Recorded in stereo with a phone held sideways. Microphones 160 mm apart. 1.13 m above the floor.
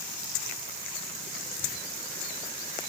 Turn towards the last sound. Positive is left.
No sound to turn to.